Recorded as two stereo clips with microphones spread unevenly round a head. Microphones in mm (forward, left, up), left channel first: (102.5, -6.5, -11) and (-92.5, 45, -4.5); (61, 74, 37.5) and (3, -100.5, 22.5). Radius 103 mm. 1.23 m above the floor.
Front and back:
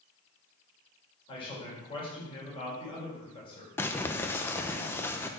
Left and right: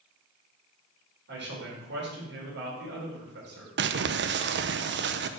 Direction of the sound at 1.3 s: 80° right.